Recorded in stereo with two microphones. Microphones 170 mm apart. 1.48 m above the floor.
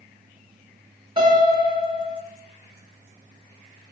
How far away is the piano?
About 6.5 m.